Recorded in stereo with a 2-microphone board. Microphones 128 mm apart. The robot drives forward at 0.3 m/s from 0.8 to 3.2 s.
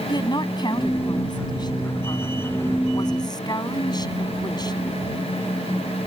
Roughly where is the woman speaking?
Left.